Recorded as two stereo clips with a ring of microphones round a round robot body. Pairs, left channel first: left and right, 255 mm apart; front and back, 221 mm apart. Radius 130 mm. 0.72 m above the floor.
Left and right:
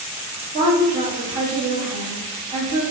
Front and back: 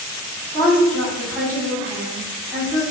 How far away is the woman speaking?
About 1.0 m.